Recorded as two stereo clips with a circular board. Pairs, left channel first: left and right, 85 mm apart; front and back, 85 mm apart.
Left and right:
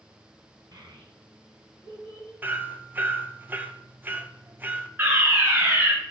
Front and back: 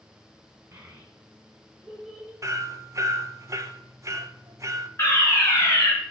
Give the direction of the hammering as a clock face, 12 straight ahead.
5 o'clock.